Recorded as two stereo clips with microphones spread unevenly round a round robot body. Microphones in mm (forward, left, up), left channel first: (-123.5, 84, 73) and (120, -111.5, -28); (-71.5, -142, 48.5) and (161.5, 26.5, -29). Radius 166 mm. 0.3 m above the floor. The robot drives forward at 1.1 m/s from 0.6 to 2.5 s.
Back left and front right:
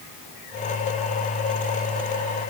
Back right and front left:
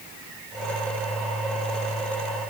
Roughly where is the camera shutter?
I don't hear a camera shutter.